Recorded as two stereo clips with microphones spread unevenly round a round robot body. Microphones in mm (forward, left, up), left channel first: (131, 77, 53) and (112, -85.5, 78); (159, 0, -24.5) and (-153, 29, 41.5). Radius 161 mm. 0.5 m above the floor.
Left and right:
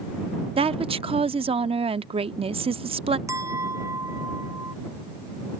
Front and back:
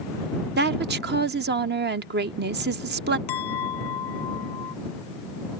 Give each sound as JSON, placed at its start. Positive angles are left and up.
{"t": 0.6, "sound": "a woman speaking", "azimuth_deg": -135}
{"t": 3.3, "sound": "a clink", "azimuth_deg": -25}